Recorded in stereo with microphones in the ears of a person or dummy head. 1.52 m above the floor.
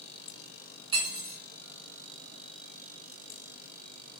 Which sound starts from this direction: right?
Cutlery clinking, at 0.9 s.